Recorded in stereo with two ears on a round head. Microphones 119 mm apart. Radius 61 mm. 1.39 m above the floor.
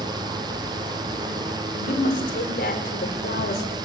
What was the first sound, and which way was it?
A woman speaking, 65° left (ahead or behind).